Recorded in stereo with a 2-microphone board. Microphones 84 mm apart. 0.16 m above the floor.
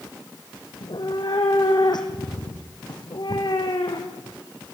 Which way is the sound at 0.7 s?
60° left (ahead or behind).